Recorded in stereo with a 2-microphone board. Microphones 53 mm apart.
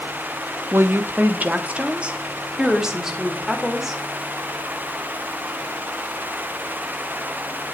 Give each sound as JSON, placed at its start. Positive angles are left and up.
{"t": 0.7, "sound": "a woman speaking", "side_deg": -50, "distance_m": 1.0}